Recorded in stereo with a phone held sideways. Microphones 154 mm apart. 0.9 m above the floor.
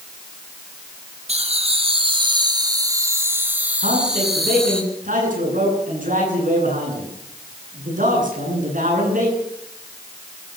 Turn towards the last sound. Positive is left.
turn(degrees=-60)  # may be behind; listen again after turning